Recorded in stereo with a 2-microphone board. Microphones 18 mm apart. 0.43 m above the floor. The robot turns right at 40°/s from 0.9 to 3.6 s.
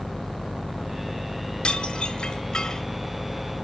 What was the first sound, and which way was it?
Dishes clattering, 90° left.